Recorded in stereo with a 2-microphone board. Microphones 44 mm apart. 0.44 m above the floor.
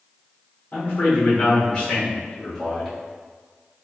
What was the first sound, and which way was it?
A man speaking, 45° left (ahead or behind).